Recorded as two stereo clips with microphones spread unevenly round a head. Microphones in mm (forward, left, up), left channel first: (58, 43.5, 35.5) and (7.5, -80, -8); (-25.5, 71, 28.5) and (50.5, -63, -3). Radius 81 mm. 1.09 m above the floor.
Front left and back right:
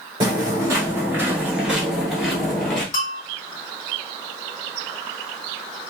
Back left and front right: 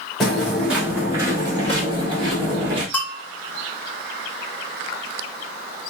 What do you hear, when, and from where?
0.2 s footsteps: 175° left, 1.1 m; by 2.8 s straight ahead, 1.7 m
2.9 s a bell: 35° left, 0.9 m